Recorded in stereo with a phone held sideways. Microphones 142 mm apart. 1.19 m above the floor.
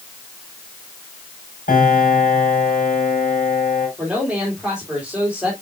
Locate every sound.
1.7 s a piano: 85° left, 4 m
4.0 s a man speaking: 5° right (ahead or behind), 3 m